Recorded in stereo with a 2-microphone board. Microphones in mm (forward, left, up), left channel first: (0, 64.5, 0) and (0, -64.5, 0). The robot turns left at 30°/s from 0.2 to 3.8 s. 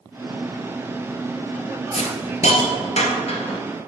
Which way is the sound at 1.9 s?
60° left (ahead or behind).